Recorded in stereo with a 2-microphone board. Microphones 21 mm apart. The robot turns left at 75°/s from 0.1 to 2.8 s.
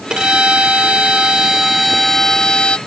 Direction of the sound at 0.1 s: 45° right.